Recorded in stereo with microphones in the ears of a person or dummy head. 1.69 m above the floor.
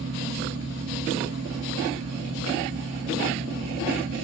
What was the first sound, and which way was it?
A fan, 60° right (ahead or behind).